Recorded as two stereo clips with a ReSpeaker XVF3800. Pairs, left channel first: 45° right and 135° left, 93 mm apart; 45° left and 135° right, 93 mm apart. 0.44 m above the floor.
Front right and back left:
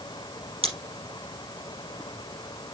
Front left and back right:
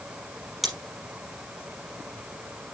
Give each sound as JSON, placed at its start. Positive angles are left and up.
{"t": 0.6, "sound": "scissors", "azimuth_deg": 135, "distance_m": 4.5}